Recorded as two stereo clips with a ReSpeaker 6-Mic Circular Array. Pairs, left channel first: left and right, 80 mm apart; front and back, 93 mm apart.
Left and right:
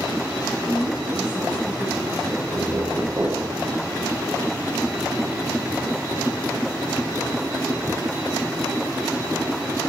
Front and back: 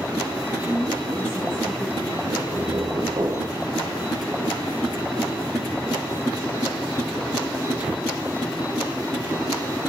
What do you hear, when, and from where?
0.7 s a woman speaking: 160° right, 3.5 m; by 2.4 s 175° right, 6 m
2.5 s knocking: 140° right, 1.5 m